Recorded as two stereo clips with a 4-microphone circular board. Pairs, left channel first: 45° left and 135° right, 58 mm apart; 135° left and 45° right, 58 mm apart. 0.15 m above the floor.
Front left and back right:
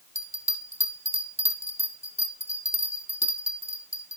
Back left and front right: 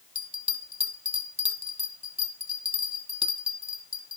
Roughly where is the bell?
Ahead.